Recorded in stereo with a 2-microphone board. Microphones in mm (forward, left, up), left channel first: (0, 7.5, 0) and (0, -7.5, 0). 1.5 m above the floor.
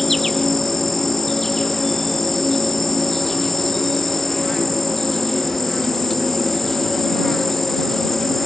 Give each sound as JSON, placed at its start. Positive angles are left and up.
{"t": 0.0, "sound": "an insect", "side_deg": 20}